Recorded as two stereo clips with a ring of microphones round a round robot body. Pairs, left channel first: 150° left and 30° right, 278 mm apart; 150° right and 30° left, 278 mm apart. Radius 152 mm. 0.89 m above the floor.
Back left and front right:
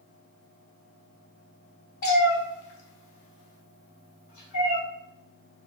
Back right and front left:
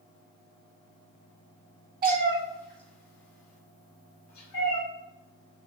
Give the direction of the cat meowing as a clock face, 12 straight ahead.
9 o'clock.